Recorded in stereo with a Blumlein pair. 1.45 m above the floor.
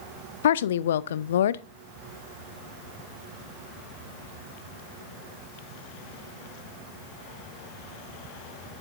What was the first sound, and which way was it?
A woman speaking, 60° left.